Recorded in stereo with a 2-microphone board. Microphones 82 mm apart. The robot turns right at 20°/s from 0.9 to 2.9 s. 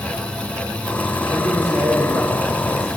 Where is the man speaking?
145° right, 1.1 m; by 2.9 s 115° right, 1.1 m.